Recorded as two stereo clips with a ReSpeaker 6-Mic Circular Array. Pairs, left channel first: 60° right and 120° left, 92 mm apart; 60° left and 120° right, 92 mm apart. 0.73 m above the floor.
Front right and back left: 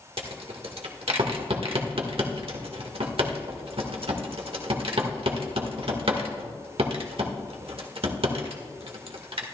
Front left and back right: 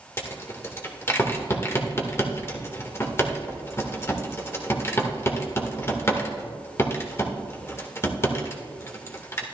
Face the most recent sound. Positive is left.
turn(degrees=120)